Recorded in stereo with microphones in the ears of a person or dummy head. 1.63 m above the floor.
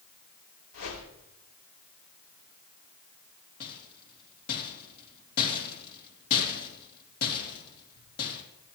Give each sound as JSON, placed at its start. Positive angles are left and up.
{"t": 0.7, "sound": "a whoosh", "side_deg": 80, "distance_m": 5.5}
{"t": 3.6, "sound": "a rattle", "side_deg": 50, "distance_m": 3.0}